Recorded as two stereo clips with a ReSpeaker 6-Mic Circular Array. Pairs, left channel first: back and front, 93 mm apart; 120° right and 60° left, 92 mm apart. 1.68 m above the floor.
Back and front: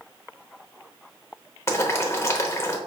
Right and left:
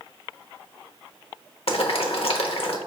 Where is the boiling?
120° right, 0.8 m.